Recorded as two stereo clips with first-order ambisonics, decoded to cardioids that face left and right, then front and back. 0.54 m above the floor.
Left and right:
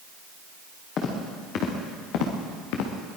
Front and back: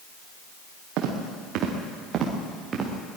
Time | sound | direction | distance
1.0 | footsteps | 145° left | 5.5 m